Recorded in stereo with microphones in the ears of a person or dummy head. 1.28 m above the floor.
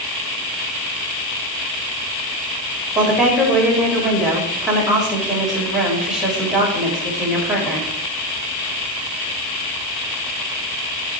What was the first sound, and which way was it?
A woman speaking, centre (ahead or behind).